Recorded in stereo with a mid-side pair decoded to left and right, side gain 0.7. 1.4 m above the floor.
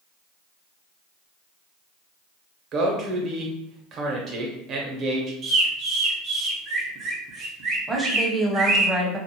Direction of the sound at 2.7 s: 45° right.